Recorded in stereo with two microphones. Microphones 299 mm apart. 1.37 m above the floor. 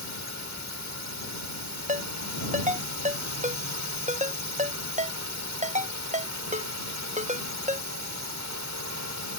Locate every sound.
0.0 s a drone: 65° right (ahead or behind)
1.9 s a ringtone: 25° right (ahead or behind)